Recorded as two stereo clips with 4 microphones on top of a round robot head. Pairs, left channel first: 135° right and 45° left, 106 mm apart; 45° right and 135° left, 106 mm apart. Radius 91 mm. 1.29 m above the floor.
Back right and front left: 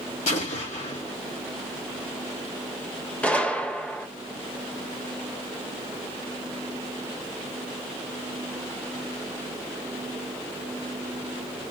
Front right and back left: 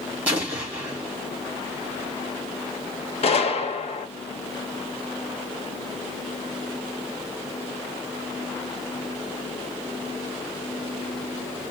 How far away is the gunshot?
About 1.0 m.